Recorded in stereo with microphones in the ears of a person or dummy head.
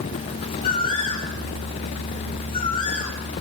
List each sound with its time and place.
0.6 s a bird: 25° left (ahead or behind), 5.5 m